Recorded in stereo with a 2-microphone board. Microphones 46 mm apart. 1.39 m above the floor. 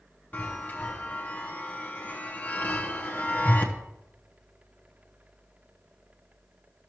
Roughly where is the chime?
Left.